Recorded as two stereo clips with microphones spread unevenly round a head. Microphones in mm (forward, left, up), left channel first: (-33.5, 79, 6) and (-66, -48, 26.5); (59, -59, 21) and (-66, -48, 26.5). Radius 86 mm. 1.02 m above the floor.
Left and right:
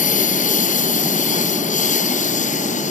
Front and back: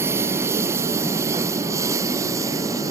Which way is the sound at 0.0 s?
100° left.